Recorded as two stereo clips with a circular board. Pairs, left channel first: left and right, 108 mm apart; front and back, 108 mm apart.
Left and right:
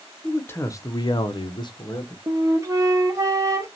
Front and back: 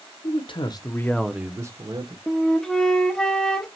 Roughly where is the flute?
Right.